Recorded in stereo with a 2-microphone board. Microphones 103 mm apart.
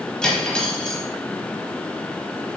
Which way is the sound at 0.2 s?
10° left (ahead or behind).